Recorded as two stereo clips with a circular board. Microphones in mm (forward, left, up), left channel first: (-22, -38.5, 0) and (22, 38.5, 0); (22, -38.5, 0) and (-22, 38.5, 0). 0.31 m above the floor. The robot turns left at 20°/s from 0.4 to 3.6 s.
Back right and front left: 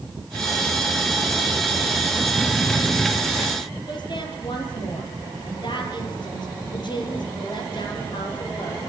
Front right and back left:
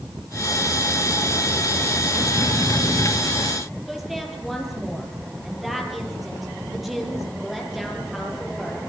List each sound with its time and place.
3.9 s a woman speaking: 150° right, 7.5 m